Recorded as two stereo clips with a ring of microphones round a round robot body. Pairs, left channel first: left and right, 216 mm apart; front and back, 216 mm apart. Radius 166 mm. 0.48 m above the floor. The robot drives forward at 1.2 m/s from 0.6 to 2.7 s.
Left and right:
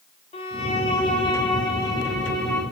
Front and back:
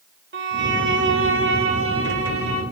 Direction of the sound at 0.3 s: 155° left.